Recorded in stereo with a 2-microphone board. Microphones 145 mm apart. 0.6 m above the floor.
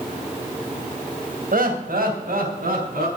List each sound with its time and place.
1.5 s laughter: 75° right (ahead or behind), 3 m; by 3.1 s 80° right, 5 m